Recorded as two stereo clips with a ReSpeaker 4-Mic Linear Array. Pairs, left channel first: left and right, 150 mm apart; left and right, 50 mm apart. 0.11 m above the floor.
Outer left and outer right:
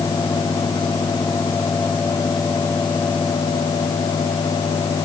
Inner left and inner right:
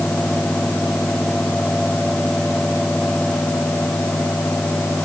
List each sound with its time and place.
Only background noise.